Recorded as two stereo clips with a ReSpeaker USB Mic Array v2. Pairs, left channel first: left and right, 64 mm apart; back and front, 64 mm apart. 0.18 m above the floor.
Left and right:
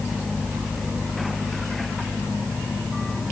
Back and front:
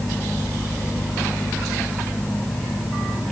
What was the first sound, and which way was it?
Only background noise.